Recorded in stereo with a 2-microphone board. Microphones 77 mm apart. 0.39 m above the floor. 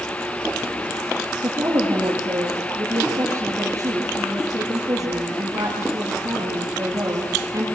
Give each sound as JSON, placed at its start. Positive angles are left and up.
{"t": 1.4, "sound": "a woman speaking", "side_deg": -45, "distance_m": 8.5}